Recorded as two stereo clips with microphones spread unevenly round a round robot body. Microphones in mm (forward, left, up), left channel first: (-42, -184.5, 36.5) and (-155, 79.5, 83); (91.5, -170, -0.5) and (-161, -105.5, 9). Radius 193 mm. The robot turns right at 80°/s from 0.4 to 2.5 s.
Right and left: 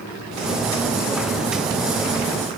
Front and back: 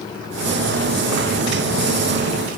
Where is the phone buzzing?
No phone buzzing in this recording.